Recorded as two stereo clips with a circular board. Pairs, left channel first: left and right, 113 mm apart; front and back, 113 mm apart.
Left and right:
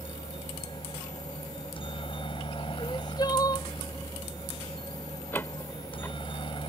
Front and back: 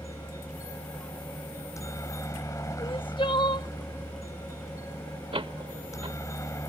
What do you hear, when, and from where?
0.0 s a helicopter: 60° left
2.8 s crying: 40° left
5.3 s a door slam: 160° left